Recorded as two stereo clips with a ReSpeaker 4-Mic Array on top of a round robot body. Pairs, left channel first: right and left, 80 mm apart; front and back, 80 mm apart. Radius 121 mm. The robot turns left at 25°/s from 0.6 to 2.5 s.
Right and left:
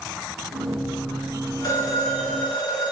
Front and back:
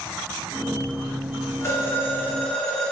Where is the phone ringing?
50° right, 5 m; by 2.9 s 75° right, 5 m.